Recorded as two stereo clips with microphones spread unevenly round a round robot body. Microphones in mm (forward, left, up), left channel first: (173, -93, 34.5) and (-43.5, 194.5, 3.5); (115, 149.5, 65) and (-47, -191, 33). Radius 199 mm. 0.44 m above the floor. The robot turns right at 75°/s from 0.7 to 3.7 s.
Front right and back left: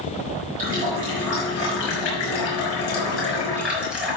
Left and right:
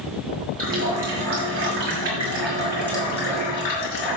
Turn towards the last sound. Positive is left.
turn(degrees=40)